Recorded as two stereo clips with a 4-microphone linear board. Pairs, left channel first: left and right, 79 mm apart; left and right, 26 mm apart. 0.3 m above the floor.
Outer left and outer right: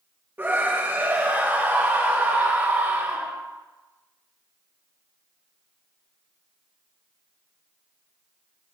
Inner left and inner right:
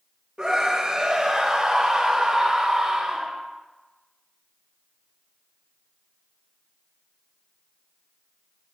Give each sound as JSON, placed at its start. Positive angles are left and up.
{"t": 0.4, "sound": "a scream", "side_deg": -25, "distance_m": 1.6}